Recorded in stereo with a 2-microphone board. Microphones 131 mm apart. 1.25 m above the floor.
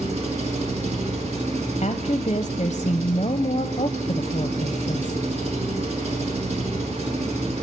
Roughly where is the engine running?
Right.